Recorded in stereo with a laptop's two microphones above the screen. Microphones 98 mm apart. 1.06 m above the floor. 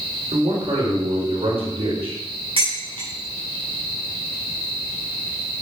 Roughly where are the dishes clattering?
Right.